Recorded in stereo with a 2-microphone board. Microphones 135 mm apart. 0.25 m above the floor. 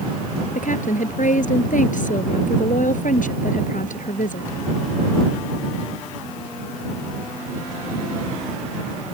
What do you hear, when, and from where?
0.6 s a woman speaking: 75° left (ahead or behind)